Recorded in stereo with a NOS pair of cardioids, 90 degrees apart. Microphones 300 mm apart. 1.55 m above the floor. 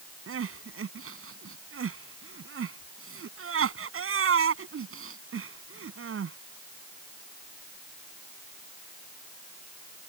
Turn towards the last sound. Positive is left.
turn(degrees=-45)